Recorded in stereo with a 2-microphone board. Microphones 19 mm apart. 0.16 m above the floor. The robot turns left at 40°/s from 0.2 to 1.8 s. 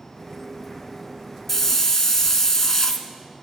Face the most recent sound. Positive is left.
turn(degrees=25)  # may be behind; listen again after turning